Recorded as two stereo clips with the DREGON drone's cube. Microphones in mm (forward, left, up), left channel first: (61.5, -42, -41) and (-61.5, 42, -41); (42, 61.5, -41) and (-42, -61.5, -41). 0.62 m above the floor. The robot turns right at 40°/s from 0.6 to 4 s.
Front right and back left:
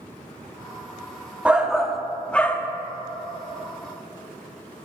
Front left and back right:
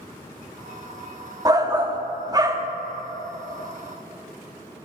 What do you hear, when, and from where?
1.4 s a shout: 145° right, 0.6 m; by 2.7 s 95° right, 0.6 m